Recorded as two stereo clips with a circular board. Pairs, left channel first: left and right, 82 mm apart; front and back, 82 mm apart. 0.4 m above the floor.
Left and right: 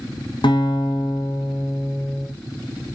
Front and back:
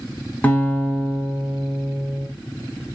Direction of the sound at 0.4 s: 70° left.